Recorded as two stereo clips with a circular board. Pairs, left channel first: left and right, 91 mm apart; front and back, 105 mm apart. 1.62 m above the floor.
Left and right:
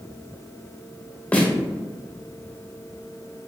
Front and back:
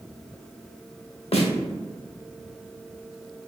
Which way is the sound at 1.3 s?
15° left.